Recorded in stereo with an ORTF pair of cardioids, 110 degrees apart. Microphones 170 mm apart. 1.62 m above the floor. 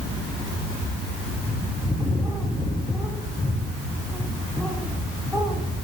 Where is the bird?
Straight ahead, 10 m.